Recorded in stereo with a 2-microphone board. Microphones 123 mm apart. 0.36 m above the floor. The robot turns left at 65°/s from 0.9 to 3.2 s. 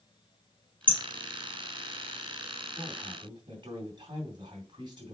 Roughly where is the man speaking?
Centre.